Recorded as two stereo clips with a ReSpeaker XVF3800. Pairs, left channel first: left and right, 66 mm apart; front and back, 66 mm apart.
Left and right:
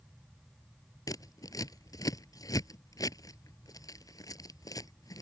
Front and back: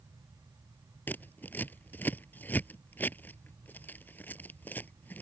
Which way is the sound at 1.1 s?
60° left.